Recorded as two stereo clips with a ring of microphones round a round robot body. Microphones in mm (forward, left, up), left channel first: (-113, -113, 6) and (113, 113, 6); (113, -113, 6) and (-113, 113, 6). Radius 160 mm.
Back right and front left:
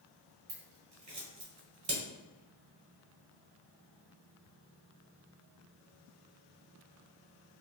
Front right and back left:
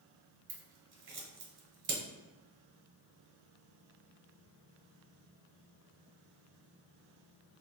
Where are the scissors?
95° left, 1.1 m.